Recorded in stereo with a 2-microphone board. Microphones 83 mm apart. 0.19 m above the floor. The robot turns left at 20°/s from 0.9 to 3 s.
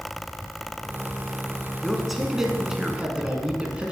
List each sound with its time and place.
1.8 s a man speaking: centre (ahead or behind), 1.9 m; by 3.9 s 15° right (ahead or behind), 1.9 m